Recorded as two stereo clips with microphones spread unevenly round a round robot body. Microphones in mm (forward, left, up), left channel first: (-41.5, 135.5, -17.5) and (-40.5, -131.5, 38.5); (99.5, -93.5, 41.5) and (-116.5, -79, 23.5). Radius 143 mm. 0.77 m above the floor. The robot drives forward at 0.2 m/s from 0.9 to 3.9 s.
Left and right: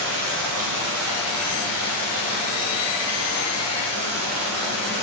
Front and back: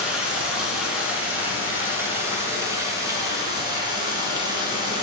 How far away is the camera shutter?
I don't hear a camera shutter.